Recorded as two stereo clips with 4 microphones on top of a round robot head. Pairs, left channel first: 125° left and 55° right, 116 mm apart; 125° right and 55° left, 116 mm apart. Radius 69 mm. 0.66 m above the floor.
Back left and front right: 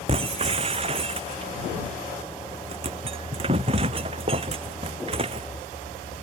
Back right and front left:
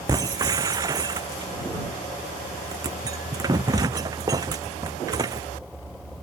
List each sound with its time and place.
0.1 s breaking glass: 10° right